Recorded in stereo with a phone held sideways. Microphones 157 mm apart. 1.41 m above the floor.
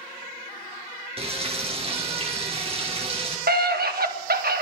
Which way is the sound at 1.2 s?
40° right (ahead or behind).